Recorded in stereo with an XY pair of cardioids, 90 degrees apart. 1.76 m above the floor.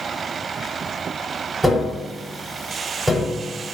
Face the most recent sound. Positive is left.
turn(degrees=-15)